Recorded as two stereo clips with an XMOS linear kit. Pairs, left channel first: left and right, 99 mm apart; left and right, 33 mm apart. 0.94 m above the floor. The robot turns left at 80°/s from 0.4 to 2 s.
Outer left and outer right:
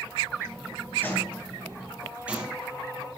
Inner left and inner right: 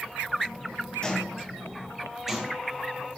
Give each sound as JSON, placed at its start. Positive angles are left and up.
{"t": 1.0, "sound": "footsteps", "side_deg": 20, "distance_m": 1.4}